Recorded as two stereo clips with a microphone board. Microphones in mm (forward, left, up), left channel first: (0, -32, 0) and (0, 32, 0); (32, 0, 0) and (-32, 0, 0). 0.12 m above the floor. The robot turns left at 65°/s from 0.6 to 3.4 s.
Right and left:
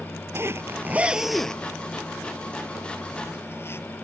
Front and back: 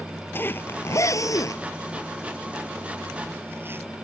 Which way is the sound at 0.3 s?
50° left.